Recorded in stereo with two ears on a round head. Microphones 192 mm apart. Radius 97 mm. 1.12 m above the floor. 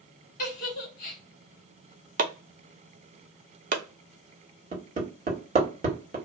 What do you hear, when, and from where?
0.4 s a giggle: 40° left (ahead or behind), 1.1 m
2.2 s chopping: 40° right (ahead or behind), 0.6 m
4.7 s hammering: 35° right (ahead or behind), 1.4 m